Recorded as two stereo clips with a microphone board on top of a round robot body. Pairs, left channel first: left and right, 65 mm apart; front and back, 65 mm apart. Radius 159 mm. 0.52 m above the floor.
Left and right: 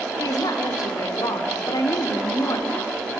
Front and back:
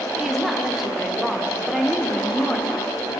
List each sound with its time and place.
0.2 s a woman speaking: 90° left, 2.5 m